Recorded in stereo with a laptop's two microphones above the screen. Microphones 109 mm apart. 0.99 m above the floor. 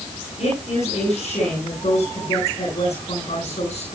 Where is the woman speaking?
80° left, 9 m.